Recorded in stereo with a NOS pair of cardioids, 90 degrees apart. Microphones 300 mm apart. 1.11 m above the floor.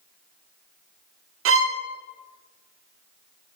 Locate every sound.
1.4 s a violin: 45° right, 0.6 m